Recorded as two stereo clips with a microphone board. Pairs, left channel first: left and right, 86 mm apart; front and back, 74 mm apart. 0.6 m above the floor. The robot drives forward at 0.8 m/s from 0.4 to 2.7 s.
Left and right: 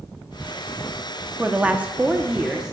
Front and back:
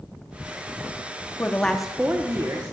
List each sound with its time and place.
1.4 s a woman speaking: 25° right, 0.7 m; by 2.7 s 170° right, 1.0 m